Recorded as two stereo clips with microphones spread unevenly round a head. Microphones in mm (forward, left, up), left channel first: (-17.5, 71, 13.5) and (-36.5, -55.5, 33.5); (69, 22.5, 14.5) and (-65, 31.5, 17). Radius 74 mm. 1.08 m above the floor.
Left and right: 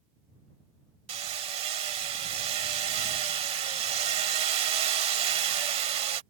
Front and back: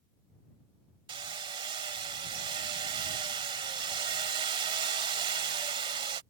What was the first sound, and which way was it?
Hammering, 130° right.